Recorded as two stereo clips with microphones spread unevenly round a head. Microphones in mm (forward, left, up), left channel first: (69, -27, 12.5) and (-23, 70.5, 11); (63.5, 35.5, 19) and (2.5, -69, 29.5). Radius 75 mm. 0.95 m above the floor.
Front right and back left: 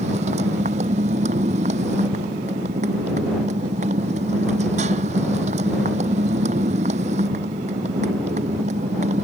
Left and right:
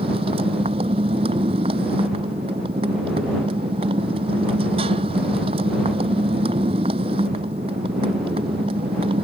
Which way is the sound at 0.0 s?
175° right.